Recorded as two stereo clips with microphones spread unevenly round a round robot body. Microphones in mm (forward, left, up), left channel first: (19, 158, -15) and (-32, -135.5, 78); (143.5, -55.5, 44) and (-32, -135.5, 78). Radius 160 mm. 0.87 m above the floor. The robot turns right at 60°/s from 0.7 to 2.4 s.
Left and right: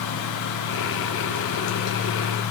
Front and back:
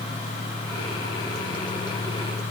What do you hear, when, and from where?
Only background noise.